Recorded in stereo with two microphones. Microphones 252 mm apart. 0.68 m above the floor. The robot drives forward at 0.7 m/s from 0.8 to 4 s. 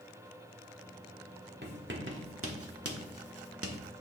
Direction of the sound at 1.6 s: 40° right (ahead or behind).